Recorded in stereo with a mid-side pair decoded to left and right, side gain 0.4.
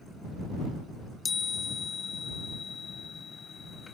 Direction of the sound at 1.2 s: 40° left.